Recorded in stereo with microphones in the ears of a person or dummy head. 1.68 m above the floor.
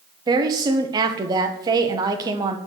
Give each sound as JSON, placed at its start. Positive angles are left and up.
{"t": 0.3, "sound": "a woman speaking", "side_deg": -25, "distance_m": 0.7}